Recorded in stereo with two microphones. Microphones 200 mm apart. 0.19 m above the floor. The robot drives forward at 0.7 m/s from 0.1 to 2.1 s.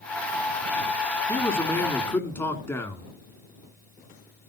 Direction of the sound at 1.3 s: 15° left (ahead or behind).